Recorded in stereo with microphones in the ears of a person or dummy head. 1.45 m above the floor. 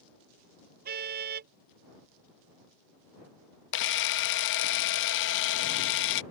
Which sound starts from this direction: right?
A car horn, at 0.8 s.